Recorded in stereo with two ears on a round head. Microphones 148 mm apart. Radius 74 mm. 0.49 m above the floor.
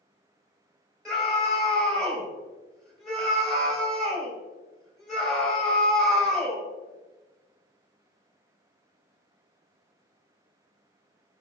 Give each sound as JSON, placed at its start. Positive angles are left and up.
{"t": 1.1, "sound": "a scream", "side_deg": 5, "distance_m": 3.0}